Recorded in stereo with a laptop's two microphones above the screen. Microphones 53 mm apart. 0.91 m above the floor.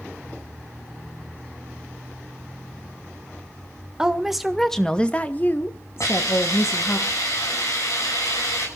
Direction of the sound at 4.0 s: 15° right (ahead or behind).